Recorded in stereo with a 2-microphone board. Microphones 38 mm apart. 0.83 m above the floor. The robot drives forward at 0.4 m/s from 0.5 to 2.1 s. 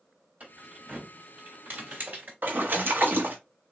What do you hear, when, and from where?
0.4 s keys jangling: 45° right (ahead or behind), 4 m; by 2.3 s 55° right (ahead or behind), 3.5 m
2.4 s a splash: 55° right (ahead or behind), 1.3 m